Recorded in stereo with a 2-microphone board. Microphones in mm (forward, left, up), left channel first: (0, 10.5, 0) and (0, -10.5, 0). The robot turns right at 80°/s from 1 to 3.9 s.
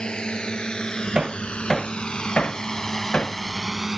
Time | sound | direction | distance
0.0 | a drone | 60° left (ahead or behind) | ?
1.1 | hammering | 35° right (ahead or behind) | ?